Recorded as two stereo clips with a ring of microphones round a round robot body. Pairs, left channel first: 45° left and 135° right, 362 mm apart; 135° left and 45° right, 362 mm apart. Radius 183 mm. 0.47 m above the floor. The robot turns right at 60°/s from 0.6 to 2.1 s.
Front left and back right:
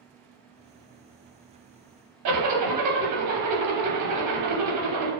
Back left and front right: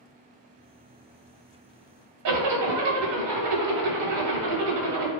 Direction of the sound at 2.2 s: 90° right.